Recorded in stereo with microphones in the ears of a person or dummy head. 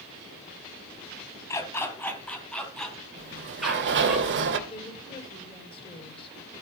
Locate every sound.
1.5 s a dog barking: 20° left (ahead or behind), 3 m; by 4.2 s 5° right (ahead or behind), 5 m
3.2 s a sliding door: 65° right (ahead or behind), 2.5 m
4.7 s a woman speaking: 30° left (ahead or behind), 5 m